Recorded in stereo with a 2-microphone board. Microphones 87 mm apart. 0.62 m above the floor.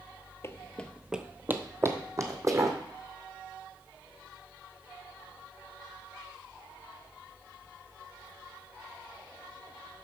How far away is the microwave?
I don't hear a microwave.